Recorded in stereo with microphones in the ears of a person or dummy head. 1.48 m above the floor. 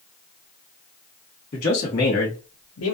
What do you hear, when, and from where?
1.5 s a man speaking: 40° left (ahead or behind), 1.3 m; by 3.0 s 75° left (ahead or behind), 0.7 m